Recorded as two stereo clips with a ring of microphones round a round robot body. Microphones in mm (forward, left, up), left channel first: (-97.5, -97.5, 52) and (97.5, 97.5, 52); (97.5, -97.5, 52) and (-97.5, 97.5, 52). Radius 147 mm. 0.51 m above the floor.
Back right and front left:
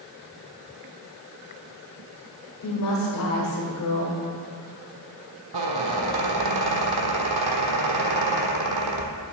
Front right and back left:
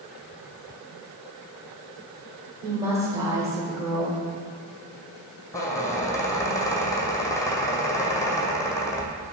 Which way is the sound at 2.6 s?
150° right.